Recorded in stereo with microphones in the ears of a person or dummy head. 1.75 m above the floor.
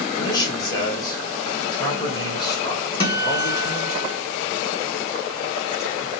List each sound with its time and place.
0.2 s a man speaking: 25° left (ahead or behind), 1.7 m
3.0 s a guitar: 25° left (ahead or behind), 1.3 m